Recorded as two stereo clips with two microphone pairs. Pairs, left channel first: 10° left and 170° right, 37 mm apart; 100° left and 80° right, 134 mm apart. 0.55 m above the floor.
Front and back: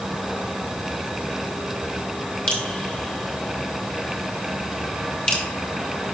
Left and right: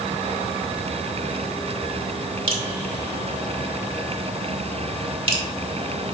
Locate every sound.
2.5 s dripping: 45° right, 1.6 m